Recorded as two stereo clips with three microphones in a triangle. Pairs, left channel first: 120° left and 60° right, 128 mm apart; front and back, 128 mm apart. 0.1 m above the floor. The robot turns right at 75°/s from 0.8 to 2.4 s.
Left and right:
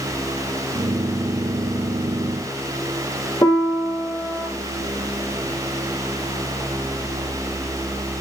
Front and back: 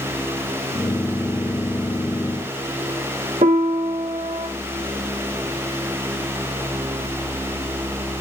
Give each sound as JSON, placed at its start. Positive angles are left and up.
{"t": 3.4, "sound": "a piano", "azimuth_deg": 175, "distance_m": 0.6}